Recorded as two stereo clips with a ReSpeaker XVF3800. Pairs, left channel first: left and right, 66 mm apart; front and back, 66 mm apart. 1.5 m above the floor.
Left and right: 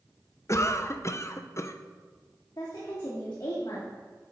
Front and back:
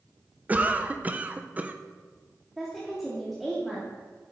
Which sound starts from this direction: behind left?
A cough, at 0.5 s.